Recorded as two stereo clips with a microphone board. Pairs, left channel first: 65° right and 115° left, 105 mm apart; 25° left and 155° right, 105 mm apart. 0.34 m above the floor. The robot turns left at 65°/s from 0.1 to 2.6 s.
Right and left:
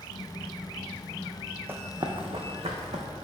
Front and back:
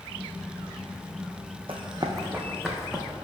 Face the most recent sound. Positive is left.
turn(degrees=115)